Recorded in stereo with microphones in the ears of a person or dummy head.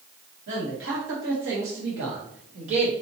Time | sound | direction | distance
0.5 | a man speaking | 65° right (ahead or behind) | 1.5 m